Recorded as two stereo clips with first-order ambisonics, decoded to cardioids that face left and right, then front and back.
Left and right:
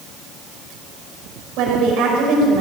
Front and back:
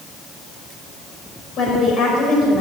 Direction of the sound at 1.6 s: 55° right.